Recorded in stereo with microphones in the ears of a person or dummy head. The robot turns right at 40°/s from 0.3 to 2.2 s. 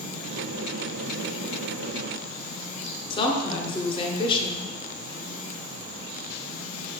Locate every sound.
3.1 s a woman speaking: 30° left (ahead or behind), 0.6 m